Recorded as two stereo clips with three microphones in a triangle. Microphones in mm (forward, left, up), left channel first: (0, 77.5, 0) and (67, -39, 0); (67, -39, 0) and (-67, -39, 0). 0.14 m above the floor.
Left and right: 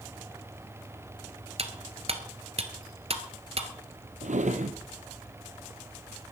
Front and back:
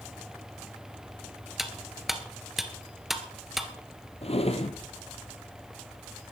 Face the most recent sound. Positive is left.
turn(degrees=-40)